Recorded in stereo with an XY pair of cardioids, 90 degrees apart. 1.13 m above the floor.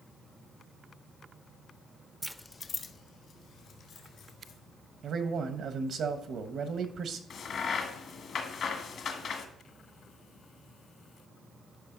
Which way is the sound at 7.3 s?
65° left.